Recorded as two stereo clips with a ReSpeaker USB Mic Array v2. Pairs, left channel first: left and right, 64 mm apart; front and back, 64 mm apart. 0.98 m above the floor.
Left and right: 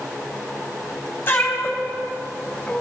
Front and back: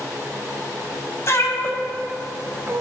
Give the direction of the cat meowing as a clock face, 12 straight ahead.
11 o'clock.